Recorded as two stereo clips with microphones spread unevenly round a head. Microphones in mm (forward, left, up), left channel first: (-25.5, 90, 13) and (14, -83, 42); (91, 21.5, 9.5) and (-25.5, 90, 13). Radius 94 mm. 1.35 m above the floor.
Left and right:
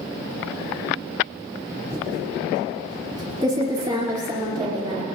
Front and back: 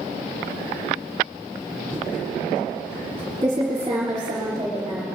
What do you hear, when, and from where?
1.9 s typing on a keyboard: 140° right, 3 m